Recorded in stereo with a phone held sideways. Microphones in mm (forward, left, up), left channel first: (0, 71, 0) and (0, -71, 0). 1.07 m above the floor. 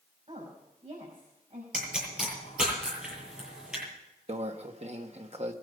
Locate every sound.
0.3 s a woman speaking: 45° right (ahead or behind), 6 m
1.7 s a pop: 5° right (ahead or behind), 8 m
4.3 s a microwave: 50° right (ahead or behind), 1.3 m